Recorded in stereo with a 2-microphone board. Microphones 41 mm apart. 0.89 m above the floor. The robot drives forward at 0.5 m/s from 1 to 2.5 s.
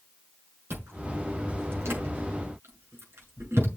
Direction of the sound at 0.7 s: 70° right (ahead or behind).